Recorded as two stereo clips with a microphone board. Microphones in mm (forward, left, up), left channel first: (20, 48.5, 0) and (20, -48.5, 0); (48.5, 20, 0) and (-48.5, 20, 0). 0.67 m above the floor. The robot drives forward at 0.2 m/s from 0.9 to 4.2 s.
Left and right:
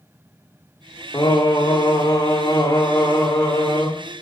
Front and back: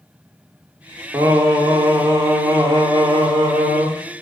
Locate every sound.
1.1 s singing: 130° left, 1.1 m; by 3.9 s 150° left, 1.5 m